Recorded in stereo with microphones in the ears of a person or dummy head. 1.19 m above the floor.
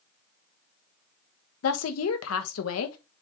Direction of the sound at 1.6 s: 75° left (ahead or behind).